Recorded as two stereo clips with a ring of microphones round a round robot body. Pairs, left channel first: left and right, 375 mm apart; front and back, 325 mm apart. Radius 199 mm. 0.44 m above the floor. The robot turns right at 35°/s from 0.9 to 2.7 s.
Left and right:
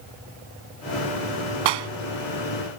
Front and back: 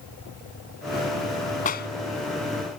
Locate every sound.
1.6 s a clap: 70° right; by 1.9 s 65° right